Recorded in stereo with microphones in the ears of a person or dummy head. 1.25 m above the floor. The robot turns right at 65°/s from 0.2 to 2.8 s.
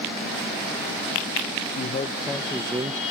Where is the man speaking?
125° left, 0.8 m; by 3.0 s 165° right, 0.8 m.